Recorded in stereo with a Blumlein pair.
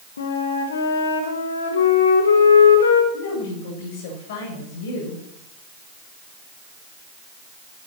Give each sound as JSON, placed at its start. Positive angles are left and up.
{"t": 0.2, "sound": "a flute", "azimuth_deg": 65, "distance_m": 2.0}
{"t": 3.1, "sound": "a woman speaking", "azimuth_deg": 50, "distance_m": 8.0}